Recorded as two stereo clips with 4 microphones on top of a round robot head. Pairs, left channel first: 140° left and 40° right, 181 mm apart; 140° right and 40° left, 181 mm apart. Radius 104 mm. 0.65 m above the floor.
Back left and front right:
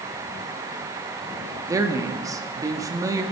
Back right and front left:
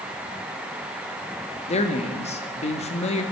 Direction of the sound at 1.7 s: 105° right.